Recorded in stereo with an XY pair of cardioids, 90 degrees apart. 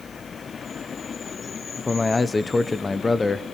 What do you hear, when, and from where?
1.8 s a man speaking: 35° left, 1.0 m